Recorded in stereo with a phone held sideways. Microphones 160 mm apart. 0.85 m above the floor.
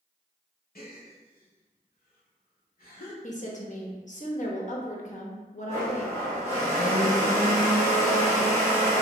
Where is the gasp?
70° left (ahead or behind), 1.2 m.